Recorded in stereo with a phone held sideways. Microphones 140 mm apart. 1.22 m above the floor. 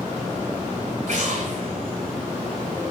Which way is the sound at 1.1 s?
65° right (ahead or behind).